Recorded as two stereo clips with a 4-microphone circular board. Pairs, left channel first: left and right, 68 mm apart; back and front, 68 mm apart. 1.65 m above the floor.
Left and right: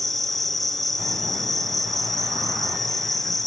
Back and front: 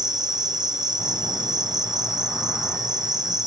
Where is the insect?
5° left, 1.0 m.